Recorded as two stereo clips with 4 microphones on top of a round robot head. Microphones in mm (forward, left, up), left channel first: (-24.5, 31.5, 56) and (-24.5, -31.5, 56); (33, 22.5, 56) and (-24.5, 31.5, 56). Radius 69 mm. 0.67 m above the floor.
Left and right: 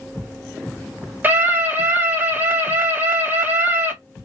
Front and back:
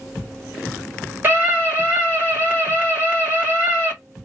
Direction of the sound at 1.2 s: 140° right.